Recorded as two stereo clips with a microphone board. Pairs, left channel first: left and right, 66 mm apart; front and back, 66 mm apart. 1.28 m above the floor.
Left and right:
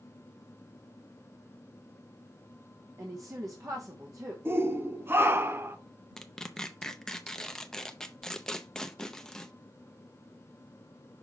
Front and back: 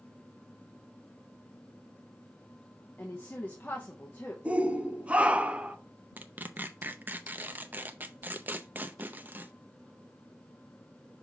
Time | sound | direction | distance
3.0 | a woman speaking | 65° right | 1.0 m
4.5 | a shout | 115° right | 0.7 m
6.2 | tearing paper | 160° left | 0.5 m